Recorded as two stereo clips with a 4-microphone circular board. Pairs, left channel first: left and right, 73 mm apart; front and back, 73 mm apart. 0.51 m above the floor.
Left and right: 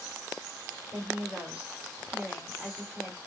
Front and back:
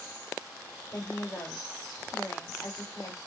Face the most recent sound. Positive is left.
turn(degrees=-25)